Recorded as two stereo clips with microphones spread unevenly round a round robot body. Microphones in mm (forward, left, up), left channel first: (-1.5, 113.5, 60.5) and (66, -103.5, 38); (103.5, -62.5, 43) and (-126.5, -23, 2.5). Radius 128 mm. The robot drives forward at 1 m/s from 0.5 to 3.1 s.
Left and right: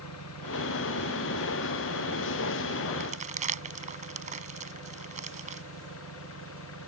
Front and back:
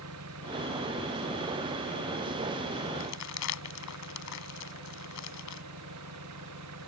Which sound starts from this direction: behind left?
An engine running, at 0.0 s.